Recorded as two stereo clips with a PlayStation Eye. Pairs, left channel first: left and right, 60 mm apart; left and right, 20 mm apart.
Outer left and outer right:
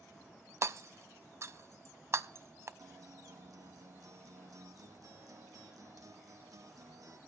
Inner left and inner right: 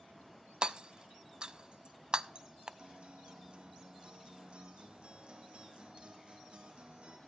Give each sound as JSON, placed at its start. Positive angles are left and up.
{"t": 0.6, "sound": "hammering", "side_deg": -50, "distance_m": 0.5}
{"t": 2.8, "sound": "a guitar", "side_deg": -65, "distance_m": 2.0}